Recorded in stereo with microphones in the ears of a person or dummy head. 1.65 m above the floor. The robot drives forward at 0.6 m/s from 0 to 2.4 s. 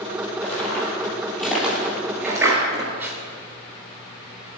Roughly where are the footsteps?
Centre.